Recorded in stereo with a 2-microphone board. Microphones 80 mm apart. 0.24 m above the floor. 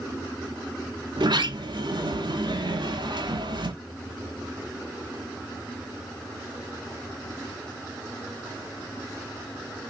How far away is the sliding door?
About 0.7 m.